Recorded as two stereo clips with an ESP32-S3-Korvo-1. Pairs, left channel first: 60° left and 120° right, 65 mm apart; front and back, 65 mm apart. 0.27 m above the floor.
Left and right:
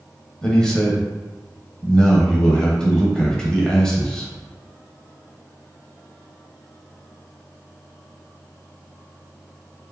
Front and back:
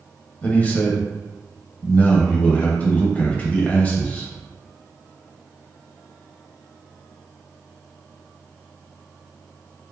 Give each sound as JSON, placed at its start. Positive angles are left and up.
{"t": 0.4, "sound": "a man speaking", "azimuth_deg": 0, "distance_m": 0.9}